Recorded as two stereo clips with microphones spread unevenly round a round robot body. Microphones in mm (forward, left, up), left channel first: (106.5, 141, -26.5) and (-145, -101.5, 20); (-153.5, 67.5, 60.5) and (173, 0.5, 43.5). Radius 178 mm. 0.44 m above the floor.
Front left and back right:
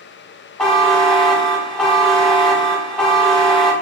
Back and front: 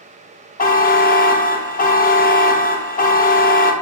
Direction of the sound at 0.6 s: 115° left.